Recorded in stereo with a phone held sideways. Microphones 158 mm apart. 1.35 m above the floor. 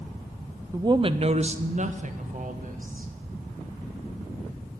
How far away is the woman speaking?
About 0.5 m.